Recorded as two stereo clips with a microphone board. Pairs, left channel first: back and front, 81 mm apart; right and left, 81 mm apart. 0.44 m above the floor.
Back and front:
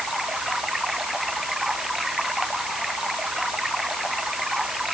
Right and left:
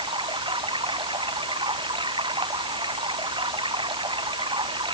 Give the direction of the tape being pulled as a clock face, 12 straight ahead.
No tape being pulled in this recording.